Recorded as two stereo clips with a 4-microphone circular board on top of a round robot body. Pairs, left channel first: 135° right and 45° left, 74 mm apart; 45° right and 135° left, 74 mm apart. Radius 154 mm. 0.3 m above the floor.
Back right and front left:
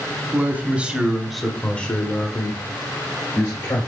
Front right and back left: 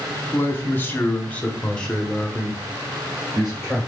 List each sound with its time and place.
0.3 s a man speaking: straight ahead, 1.4 m; by 3.9 s 150° right, 2 m